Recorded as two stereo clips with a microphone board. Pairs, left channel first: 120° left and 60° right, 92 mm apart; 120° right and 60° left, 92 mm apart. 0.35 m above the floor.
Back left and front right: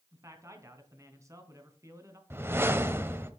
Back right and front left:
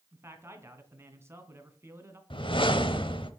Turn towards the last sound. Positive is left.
turn(degrees=-120)